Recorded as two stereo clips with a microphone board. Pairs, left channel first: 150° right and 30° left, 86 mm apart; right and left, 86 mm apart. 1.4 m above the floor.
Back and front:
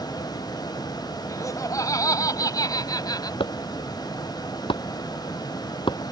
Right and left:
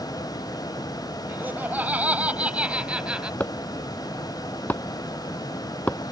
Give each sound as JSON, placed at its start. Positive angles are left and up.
{"t": 1.3, "sound": "laughter", "azimuth_deg": 160}
{"t": 3.4, "sound": "chopping", "azimuth_deg": -160}